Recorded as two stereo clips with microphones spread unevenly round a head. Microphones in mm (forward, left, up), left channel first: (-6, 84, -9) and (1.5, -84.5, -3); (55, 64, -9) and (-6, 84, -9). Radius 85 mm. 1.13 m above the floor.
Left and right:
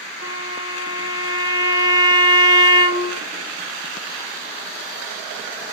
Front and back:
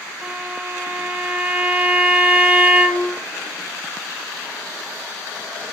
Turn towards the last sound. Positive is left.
turn(degrees=100)